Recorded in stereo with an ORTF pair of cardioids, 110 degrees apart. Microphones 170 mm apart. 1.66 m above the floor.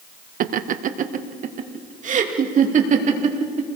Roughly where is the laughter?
Ahead right.